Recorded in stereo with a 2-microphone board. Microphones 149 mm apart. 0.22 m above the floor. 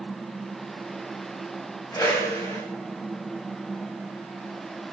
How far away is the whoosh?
About 9.5 m.